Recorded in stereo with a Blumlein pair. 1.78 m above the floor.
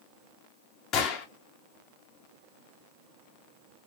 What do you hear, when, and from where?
0.9 s a gunshot: 30° left, 1.8 m